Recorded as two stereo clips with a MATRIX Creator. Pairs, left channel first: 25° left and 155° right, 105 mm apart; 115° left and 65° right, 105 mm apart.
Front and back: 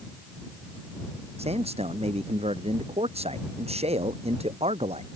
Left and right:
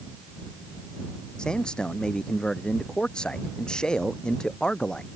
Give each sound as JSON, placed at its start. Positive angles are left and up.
{"t": 1.4, "sound": "a man speaking", "azimuth_deg": -165}